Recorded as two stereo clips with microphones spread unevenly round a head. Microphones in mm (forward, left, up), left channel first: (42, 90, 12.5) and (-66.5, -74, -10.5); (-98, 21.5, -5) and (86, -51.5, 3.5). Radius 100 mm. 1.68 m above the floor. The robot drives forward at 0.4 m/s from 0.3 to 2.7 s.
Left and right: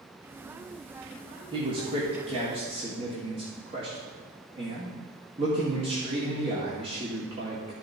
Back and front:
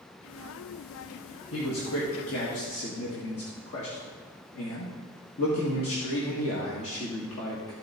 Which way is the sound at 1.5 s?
170° left.